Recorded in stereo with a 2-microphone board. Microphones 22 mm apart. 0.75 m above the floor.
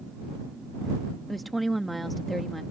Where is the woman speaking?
Centre (ahead or behind).